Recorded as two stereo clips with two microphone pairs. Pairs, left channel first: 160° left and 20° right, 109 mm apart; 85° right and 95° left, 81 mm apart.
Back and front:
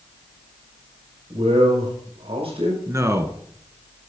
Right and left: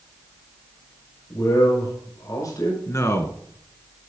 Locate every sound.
1.3 s a man speaking: 45° right, 6 m
2.9 s a man speaking: 65° right, 1.4 m